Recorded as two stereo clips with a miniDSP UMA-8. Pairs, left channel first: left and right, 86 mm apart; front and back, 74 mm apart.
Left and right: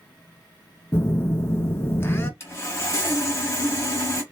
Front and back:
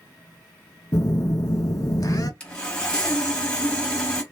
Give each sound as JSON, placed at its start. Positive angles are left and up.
{"t": 0.9, "sound": "a phone buzzing", "azimuth_deg": 30, "distance_m": 0.6}
{"t": 2.4, "sound": "sawing", "azimuth_deg": 65, "distance_m": 1.0}